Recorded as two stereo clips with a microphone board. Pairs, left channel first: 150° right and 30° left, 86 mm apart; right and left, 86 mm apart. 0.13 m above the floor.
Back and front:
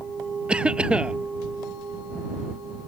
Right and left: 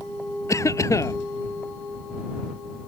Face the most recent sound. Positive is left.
turn(degrees=-45)